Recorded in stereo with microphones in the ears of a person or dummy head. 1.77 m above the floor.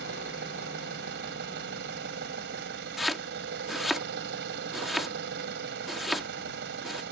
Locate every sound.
0.0 s an engine running: 65° right (ahead or behind)
3.0 s chopping: centre (ahead or behind)